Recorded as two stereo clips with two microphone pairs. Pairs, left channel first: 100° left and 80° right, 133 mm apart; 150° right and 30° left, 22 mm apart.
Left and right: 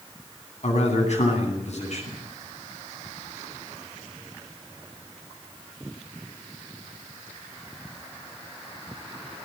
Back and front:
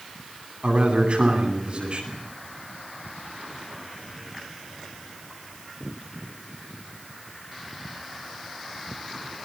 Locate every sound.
0.6 s a man speaking: 70° left, 9.5 m